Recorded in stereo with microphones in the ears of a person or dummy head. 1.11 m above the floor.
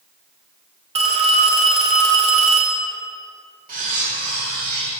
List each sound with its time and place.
0.9 s a phone ringing: 30° right (ahead or behind), 0.8 m
3.7 s cutlery clinking: 45° right (ahead or behind), 1.7 m